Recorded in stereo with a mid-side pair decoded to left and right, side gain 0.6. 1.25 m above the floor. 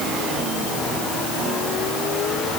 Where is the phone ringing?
No phone ringing in this recording.